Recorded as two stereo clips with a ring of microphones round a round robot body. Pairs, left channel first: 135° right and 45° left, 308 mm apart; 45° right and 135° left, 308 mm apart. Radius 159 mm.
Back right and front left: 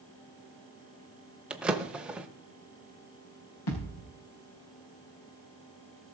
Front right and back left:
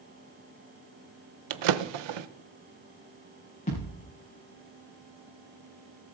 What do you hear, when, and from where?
1.5 s a drawer: 130° left, 0.7 m
3.7 s a thud: 115° right, 5 m